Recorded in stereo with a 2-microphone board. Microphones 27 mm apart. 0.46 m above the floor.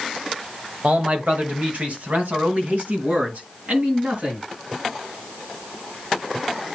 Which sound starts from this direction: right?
A man speaking, at 0.8 s.